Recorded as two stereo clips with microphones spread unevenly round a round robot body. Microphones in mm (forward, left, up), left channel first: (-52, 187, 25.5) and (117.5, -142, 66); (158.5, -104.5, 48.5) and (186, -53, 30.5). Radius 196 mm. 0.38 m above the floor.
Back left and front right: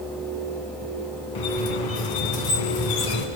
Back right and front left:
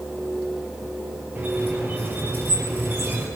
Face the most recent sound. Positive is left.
turn(degrees=145)